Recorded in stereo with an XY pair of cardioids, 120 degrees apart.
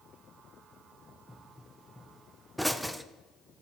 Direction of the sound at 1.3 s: 5° right.